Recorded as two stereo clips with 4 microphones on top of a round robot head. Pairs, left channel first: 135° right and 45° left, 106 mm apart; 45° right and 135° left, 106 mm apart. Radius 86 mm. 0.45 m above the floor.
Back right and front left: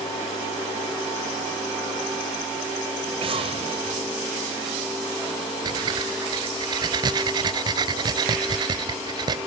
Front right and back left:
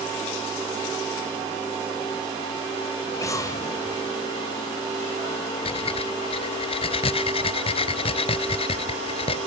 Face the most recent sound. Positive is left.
turn(degrees=-10)